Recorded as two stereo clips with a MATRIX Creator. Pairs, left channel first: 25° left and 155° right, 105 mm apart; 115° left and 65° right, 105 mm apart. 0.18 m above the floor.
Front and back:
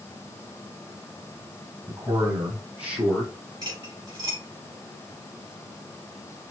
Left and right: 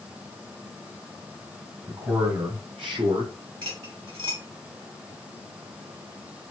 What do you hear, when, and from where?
1.9 s a man speaking: 105° right, 2.5 m; by 3.3 s 75° right, 2.5 m
3.6 s cutlery clinking: 105° right, 2.5 m